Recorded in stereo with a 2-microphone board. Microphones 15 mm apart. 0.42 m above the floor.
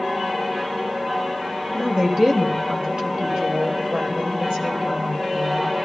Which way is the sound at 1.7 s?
35° right (ahead or behind).